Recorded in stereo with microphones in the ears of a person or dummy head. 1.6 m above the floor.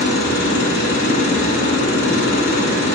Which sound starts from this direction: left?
A machine running, at 0.0 s.